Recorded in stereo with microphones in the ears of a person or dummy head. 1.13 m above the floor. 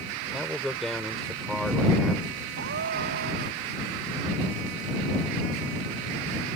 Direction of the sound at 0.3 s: Centre (ahead or behind).